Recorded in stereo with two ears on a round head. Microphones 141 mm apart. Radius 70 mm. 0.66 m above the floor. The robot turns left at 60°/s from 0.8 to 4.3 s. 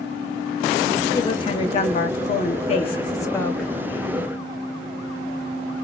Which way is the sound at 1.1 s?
155° left.